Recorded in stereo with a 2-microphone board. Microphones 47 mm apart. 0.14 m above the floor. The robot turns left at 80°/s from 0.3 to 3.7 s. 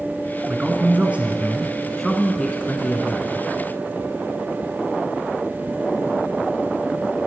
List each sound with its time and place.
0.5 s a man speaking: 20° right (ahead or behind), 1.7 m; by 3.5 s 25° left (ahead or behind), 1.7 m